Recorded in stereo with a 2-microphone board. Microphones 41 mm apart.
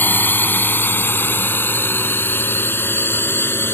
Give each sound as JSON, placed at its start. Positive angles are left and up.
{"t": 0.0, "sound": "a drone", "side_deg": 55}